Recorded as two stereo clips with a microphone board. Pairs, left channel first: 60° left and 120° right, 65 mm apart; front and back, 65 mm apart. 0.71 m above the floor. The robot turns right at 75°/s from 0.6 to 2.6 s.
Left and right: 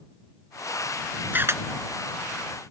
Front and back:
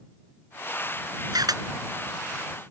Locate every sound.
1.3 s a camera shutter: straight behind; by 1.6 s 160° right